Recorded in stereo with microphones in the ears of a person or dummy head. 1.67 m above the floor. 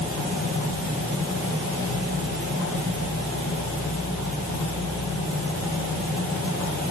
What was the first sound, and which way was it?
Only background noise.